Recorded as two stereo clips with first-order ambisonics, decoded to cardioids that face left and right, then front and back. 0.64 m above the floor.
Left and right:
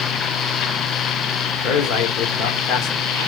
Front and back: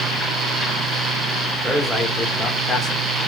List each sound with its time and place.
1.6 s a man speaking: 90° left, 2 m; by 3.1 s 55° left, 2 m